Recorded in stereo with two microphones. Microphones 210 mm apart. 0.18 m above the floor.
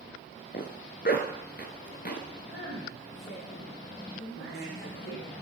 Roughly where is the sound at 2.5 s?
Left.